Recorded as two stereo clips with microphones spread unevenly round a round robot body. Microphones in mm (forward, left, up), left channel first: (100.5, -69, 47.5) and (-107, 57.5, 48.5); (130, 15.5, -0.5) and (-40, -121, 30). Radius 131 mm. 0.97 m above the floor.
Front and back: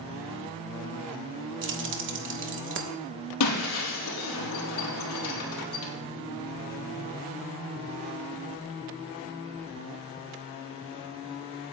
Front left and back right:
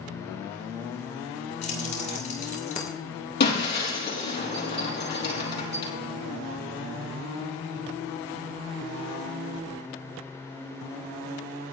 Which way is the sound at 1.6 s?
105° left.